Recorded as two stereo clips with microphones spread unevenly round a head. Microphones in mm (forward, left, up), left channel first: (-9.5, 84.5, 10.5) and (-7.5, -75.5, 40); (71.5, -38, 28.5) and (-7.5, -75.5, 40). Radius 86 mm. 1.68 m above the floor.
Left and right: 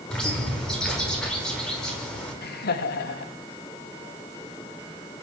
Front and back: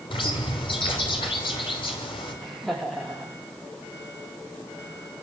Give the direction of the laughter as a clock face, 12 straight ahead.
8 o'clock.